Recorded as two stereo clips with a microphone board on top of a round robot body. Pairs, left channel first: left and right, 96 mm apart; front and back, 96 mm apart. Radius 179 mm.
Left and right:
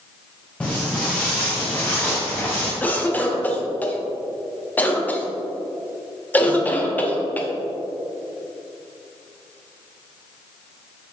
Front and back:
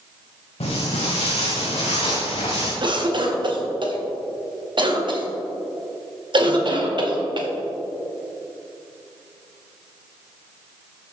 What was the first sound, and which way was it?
Footsteps, 10° left.